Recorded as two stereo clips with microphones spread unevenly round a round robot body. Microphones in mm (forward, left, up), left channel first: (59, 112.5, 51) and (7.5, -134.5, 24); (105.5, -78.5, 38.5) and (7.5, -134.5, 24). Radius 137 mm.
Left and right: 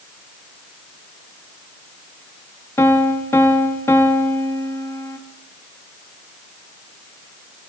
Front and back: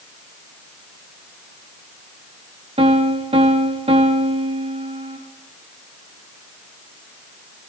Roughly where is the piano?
Behind.